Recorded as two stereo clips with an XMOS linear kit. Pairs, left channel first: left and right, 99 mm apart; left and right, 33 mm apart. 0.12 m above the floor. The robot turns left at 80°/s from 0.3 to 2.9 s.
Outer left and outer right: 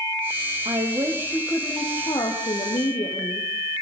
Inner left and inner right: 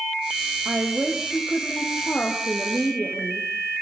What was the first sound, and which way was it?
A woman speaking, 110° right.